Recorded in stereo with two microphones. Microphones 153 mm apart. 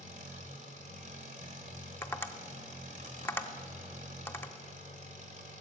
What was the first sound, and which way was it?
An engine running, 55° right (ahead or behind).